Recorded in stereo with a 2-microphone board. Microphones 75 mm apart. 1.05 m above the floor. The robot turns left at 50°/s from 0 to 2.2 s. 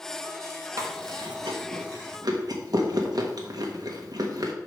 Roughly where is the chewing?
Right.